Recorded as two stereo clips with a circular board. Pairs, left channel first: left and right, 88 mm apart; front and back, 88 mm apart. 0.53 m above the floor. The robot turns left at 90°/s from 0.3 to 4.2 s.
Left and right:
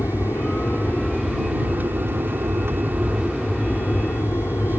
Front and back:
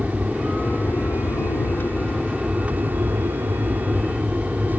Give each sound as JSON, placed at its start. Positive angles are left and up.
{"t": 0.0, "sound": "an aircraft", "azimuth_deg": 95}